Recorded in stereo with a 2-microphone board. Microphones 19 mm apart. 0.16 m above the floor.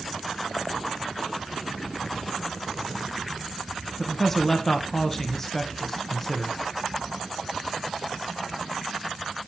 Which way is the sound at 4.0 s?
15° left (ahead or behind).